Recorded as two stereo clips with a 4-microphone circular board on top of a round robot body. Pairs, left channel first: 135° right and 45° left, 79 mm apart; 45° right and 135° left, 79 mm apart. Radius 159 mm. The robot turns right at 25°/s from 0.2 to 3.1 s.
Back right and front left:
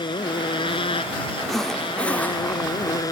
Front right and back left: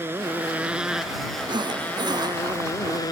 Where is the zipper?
140° left; by 3.0 s 175° left.